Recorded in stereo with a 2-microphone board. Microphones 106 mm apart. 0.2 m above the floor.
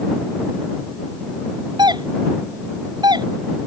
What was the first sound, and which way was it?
A doorbell, 45° right (ahead or behind).